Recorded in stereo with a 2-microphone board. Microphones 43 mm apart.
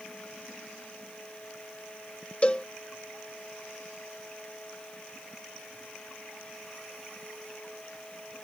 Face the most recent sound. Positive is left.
turn(degrees=25)  # may be behind; listen again after turning